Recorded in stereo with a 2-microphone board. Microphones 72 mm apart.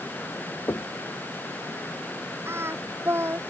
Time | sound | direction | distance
0.7 | knocking | 50° left (ahead or behind) | ?
2.5 | singing | 35° right (ahead or behind) | ?